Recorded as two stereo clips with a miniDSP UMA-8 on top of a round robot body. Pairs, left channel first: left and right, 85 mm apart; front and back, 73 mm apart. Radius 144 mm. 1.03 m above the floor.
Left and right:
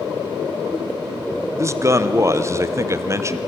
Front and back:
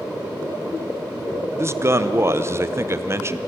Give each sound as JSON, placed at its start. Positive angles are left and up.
{"t": 1.6, "sound": "a man speaking", "azimuth_deg": -135, "distance_m": 1.2}